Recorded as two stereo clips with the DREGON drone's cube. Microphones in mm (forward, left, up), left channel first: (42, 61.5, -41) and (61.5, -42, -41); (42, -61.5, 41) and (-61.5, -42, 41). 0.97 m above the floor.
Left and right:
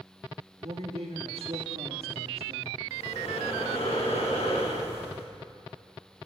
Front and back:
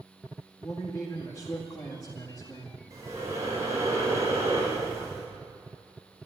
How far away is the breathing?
About 5 m.